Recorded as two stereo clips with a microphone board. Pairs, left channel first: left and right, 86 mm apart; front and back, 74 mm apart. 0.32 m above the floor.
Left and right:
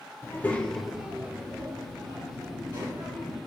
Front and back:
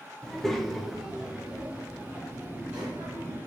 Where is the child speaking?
75° left, 0.6 m; by 3.4 s 110° right, 1.5 m.